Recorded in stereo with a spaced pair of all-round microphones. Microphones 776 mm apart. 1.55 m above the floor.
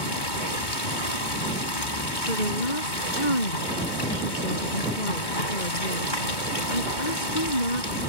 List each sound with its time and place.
0.0 s running water: 80° left
2.3 s a woman speaking: 70° left (ahead or behind)